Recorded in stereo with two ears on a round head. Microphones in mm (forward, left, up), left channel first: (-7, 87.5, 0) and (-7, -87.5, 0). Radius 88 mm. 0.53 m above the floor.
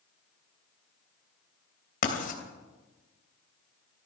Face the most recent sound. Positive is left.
turn(degrees=45)  # may be behind; listen again after turning